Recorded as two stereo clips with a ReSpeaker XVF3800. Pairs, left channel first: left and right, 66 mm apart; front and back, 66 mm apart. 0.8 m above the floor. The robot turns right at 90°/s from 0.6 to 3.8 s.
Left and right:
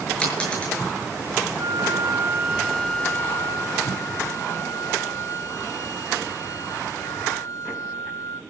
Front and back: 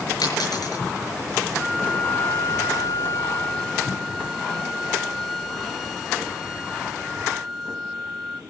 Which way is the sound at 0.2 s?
15° left.